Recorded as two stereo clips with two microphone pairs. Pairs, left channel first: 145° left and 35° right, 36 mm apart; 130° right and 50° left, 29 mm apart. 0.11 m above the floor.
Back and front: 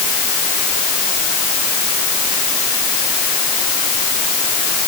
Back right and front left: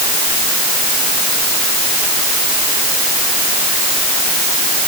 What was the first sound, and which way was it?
Only background noise.